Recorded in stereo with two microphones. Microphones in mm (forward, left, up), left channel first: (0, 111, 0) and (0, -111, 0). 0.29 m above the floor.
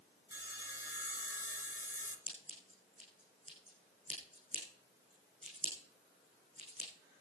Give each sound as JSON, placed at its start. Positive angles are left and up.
{"t": 0.3, "sound": "sawing", "side_deg": 55, "distance_m": 2.5}
{"t": 2.3, "sound": "scissors", "side_deg": -35, "distance_m": 6.0}